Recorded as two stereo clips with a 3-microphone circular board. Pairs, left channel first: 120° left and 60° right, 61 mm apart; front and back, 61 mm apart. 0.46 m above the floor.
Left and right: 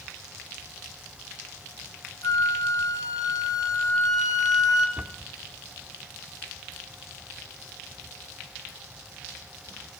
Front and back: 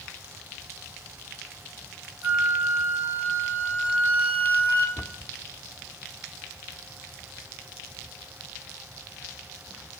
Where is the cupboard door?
Straight ahead, 0.7 m.